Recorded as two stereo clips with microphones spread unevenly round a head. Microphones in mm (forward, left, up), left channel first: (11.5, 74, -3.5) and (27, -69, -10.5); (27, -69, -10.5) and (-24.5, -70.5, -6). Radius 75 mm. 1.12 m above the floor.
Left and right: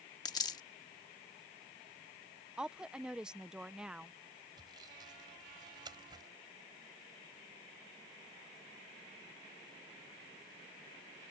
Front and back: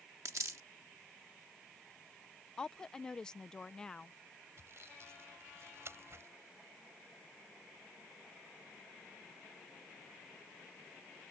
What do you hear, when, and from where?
0.2 s a dropped coin: 160° left
2.6 s a woman speaking: 20° right
4.6 s sawing: 150° right